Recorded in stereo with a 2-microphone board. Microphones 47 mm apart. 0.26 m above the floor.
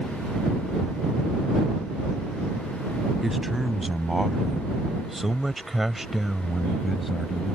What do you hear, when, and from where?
3.2 s a man speaking: 5° right (ahead or behind); by 7.5 s centre (ahead or behind)